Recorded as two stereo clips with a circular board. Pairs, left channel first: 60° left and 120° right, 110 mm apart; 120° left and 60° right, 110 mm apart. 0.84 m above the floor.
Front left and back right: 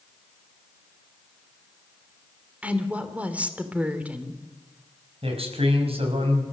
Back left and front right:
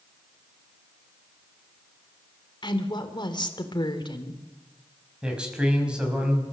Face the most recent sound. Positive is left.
turn(degrees=-140)